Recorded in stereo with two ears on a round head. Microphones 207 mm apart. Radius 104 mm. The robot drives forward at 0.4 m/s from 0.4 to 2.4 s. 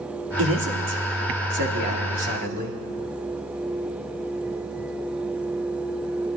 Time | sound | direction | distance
0.4 | a man speaking | 60° right (ahead or behind) | 1.9 m